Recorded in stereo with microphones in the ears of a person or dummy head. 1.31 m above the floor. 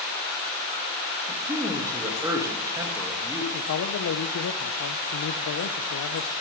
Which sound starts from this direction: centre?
A man speaking, at 1.3 s.